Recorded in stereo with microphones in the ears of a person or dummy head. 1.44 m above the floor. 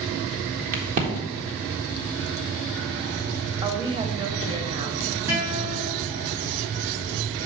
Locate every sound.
0.7 s a crack: 50° right (ahead or behind), 1.5 m
3.6 s a woman speaking: 25° right (ahead or behind), 1.0 m
5.3 s a guitar: 50° right (ahead or behind), 3.5 m